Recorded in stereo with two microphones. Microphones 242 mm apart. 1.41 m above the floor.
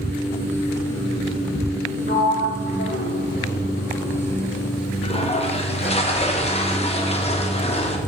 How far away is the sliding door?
About 2.5 m.